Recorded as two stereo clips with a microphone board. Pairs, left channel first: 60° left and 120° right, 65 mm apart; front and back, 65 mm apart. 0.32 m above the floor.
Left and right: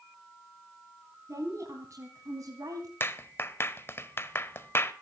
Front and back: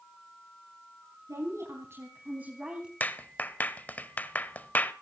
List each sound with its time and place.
1.3 s a woman speaking: 155° right, 3.5 m; by 2.9 s 105° right, 3 m
3.0 s a clap: 45° left, 1.0 m